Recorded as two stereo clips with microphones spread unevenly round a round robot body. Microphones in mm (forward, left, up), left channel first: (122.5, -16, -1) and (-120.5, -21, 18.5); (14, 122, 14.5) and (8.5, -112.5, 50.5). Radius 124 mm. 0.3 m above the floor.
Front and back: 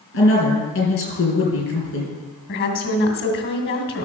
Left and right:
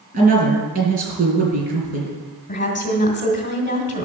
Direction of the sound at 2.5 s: 40° left.